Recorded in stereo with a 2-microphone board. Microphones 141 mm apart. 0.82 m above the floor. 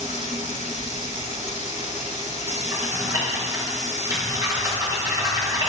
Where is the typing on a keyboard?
30° right (ahead or behind), 4 m.